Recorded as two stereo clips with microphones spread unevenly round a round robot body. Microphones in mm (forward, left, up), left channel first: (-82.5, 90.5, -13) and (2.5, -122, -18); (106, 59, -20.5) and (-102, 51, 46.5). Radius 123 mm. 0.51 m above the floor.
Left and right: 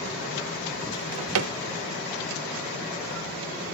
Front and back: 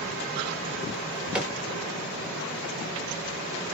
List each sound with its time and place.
0.9 s a drawer: 85° right, 0.8 m